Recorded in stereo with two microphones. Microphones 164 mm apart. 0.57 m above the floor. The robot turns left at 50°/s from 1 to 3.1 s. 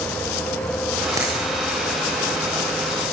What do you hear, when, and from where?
1.2 s a dropped coin: 20° right (ahead or behind), 9.5 m; by 1.4 s 30° right (ahead or behind), 9.5 m